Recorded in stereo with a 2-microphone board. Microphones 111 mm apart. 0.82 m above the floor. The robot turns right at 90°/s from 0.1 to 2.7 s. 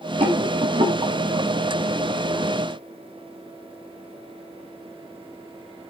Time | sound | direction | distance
0.2 | a rattle | 65° right (ahead or behind) | 4.5 m